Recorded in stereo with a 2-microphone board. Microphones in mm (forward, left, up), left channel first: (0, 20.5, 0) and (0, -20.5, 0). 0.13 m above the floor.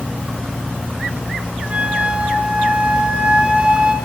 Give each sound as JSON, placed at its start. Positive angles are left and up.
{"t": 1.7, "sound": "a flute", "side_deg": -30, "distance_m": 1.6}